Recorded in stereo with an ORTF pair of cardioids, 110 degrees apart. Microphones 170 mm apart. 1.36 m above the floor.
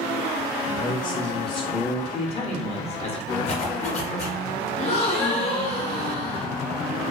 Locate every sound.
0.7 s a man speaking: 65° left, 0.8 m; by 2.0 s 10° left, 0.7 m
2.1 s a man speaking: 35° left, 0.7 m
3.5 s a zipper: 40° left, 0.8 m
4.8 s a gasp: 45° left, 0.8 m